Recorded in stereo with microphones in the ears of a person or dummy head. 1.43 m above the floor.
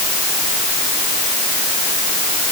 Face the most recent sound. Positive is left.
No sound to turn to.